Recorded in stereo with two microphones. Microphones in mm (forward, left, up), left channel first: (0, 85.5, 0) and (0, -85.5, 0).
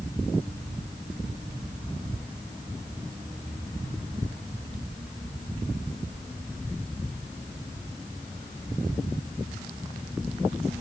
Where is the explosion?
I don't hear an explosion.